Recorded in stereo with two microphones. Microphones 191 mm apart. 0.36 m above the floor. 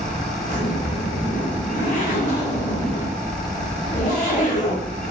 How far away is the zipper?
About 1.4 m.